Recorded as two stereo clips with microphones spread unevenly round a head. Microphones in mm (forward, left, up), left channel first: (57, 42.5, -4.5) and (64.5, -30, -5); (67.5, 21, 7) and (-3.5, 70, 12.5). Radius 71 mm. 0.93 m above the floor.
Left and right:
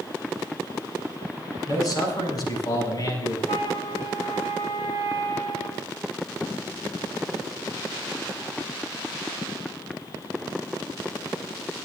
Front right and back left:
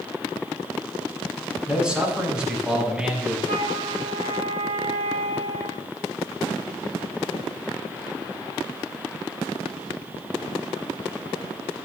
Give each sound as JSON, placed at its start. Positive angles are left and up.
{"t": 1.7, "sound": "a man speaking", "azimuth_deg": 65, "distance_m": 6.5}
{"t": 3.5, "sound": "a flute", "azimuth_deg": 150, "distance_m": 3.5}